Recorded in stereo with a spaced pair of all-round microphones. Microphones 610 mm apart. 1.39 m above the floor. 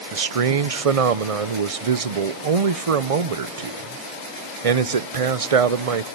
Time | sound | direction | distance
0.1 | a man speaking | 65° right (ahead or behind) | 0.7 m